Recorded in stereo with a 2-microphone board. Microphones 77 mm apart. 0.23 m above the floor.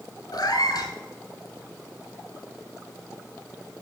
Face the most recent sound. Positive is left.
turn(degrees=70)  # may be behind; listen again after turning